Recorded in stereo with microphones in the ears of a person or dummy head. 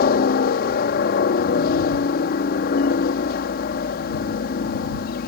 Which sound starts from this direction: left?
A helicopter, at 0.0 s.